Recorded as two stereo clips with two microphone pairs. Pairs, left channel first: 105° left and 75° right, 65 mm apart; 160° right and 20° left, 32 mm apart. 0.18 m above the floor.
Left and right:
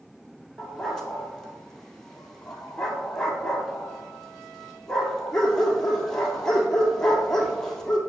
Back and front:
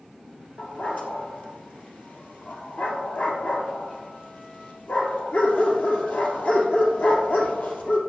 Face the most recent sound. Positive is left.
turn(degrees=-175)